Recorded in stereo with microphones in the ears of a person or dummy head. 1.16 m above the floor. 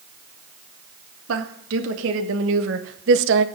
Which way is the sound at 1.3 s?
80° right.